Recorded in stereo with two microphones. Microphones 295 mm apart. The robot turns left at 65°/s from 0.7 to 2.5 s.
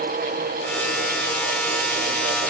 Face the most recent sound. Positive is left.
No sound to turn to.